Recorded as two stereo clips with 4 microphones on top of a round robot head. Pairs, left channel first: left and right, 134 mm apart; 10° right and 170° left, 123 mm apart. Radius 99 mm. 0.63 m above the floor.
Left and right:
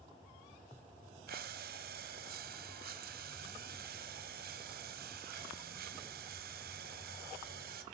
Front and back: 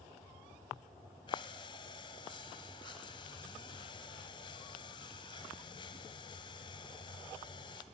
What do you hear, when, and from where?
1.3 s breathing: 75° right, 1.5 m